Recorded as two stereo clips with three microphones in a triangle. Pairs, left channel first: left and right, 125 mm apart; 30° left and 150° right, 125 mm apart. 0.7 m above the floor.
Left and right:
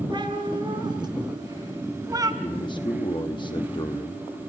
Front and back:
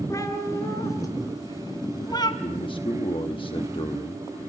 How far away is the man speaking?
About 1.0 m.